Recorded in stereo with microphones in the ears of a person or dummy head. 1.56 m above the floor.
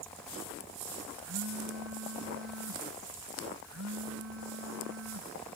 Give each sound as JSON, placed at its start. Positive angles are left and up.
{"t": 1.2, "sound": "a phone buzzing", "side_deg": -65}